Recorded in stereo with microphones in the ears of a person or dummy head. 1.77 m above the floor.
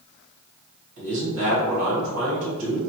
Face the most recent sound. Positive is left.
turn(degrees=-70)  # may be behind; listen again after turning